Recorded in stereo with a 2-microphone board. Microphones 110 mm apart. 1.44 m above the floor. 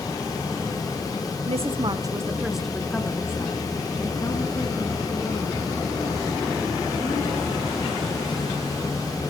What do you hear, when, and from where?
1.5 s a woman speaking: 65° right (ahead or behind), 0.8 m; by 7.7 s 50° left (ahead or behind), 4 m